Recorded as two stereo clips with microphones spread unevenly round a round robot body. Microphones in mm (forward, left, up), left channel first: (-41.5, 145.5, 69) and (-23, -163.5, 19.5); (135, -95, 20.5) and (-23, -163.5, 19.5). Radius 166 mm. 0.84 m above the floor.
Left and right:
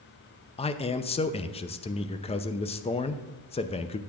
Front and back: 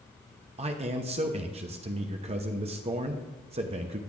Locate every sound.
0.6 s a man speaking: 170° left, 0.6 m